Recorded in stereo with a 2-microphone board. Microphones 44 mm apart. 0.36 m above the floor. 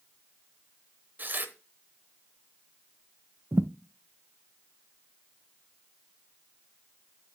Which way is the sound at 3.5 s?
65° right (ahead or behind).